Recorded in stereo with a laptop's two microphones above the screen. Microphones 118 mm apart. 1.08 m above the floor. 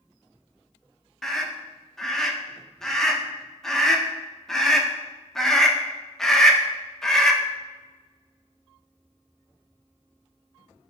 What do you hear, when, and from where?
1.2 s a scream: 5° left (ahead or behind), 0.6 m